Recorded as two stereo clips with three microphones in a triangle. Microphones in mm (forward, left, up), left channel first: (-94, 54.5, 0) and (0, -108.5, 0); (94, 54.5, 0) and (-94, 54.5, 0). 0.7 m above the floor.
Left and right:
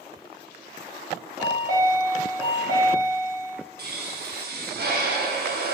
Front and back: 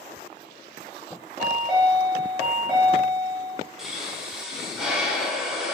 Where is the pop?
90° right, 0.6 m.